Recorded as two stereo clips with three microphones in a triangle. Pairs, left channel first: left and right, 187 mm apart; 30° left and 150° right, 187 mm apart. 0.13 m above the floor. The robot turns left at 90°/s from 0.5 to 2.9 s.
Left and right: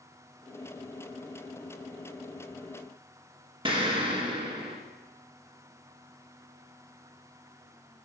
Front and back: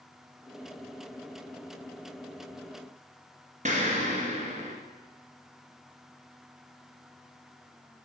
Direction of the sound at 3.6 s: 135° right.